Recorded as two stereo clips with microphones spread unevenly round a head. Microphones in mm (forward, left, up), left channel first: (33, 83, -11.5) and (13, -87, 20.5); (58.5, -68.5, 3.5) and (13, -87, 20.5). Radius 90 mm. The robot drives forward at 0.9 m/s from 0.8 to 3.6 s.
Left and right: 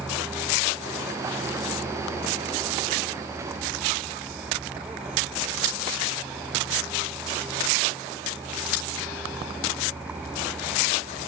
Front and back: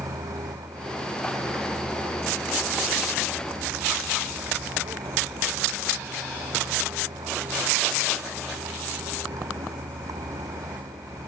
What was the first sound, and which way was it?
A vehicle, straight behind.